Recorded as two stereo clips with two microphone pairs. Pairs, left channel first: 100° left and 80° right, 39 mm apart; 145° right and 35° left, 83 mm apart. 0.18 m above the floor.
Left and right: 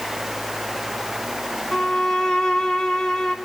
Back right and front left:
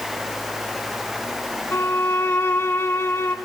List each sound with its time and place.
1.7 s a violin: 165° left, 1.5 m